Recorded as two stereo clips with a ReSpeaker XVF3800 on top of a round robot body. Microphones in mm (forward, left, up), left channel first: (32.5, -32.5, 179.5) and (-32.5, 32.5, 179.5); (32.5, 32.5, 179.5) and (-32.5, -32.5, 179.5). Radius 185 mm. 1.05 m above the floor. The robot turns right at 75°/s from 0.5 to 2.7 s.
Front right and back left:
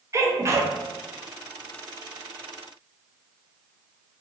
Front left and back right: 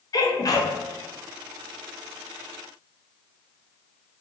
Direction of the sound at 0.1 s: 85° left.